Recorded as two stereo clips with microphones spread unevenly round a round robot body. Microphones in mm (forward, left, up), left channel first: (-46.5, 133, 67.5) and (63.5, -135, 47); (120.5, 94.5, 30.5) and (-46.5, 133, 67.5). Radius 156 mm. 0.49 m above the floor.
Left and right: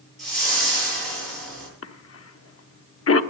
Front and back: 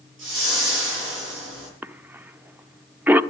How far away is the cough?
About 1.0 m.